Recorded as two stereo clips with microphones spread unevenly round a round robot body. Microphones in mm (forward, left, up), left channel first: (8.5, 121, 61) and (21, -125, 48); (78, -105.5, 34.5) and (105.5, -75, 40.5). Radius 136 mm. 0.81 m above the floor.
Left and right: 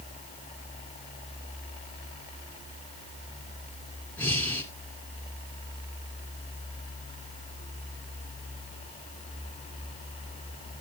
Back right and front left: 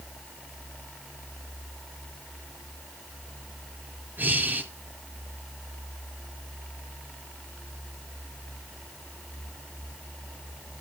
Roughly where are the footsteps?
I don't hear footsteps.